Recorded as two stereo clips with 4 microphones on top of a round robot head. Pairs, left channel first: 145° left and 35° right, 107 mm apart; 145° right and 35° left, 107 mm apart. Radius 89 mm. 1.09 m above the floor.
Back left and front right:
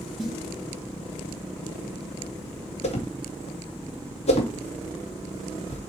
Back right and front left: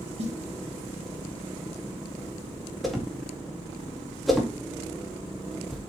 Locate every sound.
0.2 s a snare drum: 55° left, 2 m
2.8 s a whoosh: 125° left, 2 m